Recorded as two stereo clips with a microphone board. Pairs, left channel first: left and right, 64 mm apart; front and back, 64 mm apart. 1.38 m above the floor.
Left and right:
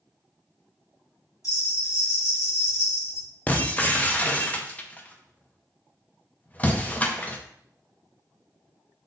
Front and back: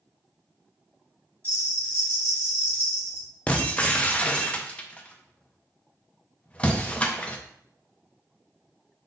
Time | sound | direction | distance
1.4 | a bell | 125° left | 2 m
3.5 | breaking glass | 50° left | 0.6 m